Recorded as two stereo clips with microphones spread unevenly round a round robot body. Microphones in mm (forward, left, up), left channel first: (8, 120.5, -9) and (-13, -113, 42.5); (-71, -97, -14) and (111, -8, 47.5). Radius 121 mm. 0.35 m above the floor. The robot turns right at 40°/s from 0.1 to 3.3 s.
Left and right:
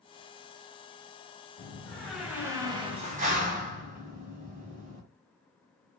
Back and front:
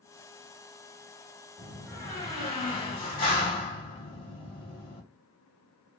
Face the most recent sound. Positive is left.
turn(degrees=-150)